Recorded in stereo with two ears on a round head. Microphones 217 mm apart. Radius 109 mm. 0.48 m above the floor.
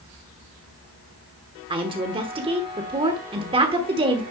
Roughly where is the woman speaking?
Right.